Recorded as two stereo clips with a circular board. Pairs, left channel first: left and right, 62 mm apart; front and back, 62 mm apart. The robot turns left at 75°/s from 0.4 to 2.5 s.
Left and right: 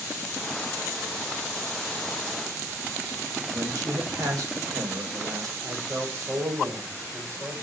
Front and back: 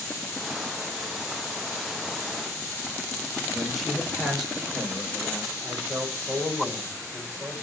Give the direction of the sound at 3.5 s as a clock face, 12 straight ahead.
3 o'clock.